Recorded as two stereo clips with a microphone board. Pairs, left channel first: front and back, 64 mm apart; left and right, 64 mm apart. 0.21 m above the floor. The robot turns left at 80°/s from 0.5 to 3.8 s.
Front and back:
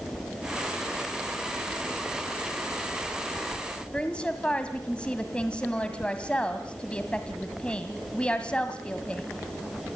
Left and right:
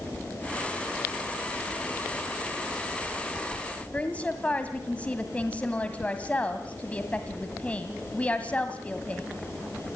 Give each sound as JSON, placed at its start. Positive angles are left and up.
{"t": 3.9, "sound": "a woman speaking", "azimuth_deg": 50, "distance_m": 1.7}